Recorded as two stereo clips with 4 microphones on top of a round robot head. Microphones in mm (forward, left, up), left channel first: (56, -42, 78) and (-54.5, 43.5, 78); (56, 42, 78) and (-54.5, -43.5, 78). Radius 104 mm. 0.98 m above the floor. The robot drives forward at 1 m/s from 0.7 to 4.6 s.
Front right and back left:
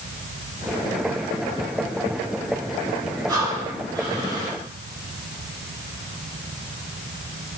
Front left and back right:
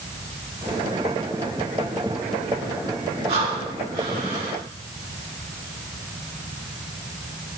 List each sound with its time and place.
3.3 s breathing: 155° right, 5 m; by 4.6 s 160° right, 6 m